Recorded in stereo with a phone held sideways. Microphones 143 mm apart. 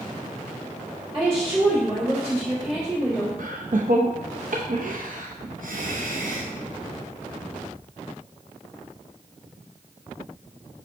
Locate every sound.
1.1 s a woman speaking: 30° right (ahead or behind), 3.5 m
3.4 s laughter: 70° right (ahead or behind), 0.6 m